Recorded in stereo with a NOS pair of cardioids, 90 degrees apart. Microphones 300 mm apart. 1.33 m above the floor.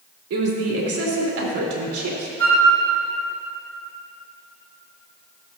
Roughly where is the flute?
Ahead right.